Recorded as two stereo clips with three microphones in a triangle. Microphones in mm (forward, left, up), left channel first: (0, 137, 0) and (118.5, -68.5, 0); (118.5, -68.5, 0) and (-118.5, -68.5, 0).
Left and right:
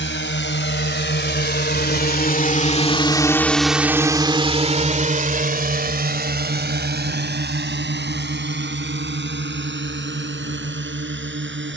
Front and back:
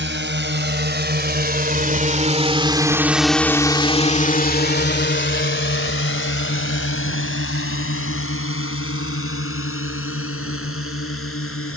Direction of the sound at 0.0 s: 150° left.